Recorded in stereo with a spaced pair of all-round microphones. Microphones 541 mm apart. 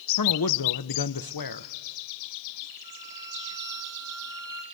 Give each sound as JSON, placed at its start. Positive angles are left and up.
{"t": 0.2, "sound": "a man speaking", "side_deg": 40, "distance_m": 0.6}
{"t": 2.8, "sound": "a violin", "side_deg": 20, "distance_m": 3.5}